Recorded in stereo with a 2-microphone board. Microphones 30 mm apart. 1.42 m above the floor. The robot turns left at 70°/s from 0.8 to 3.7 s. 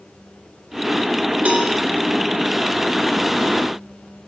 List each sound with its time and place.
1.4 s a cowbell: 65° right (ahead or behind), 2.5 m; by 1.7 s 85° right, 2.5 m